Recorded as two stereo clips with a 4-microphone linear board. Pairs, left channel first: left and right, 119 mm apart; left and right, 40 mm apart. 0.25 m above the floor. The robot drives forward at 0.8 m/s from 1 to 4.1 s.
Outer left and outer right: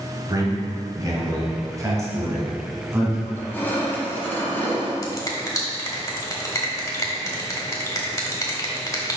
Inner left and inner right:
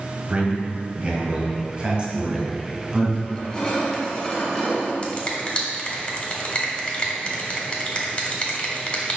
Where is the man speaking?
35° right (ahead or behind), 1.6 m; by 3.2 s 20° right (ahead or behind), 2.5 m.